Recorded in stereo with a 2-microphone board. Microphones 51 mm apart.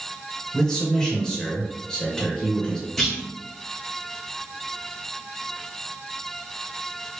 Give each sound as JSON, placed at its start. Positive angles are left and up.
{"t": 0.5, "sound": "a man speaking", "side_deg": 10, "distance_m": 1.4}
{"t": 3.0, "sound": "a clunk", "side_deg": 5, "distance_m": 2.0}